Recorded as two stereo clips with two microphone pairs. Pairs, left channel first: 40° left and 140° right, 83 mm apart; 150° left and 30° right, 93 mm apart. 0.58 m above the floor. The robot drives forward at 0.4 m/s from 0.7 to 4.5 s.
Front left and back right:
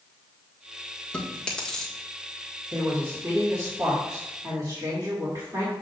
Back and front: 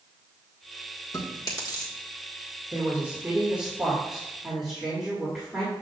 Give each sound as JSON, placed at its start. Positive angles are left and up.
{"t": 1.1, "sound": "chewing", "azimuth_deg": 110, "distance_m": 1.6}
{"t": 2.7, "sound": "a woman speaking", "azimuth_deg": -90, "distance_m": 1.7}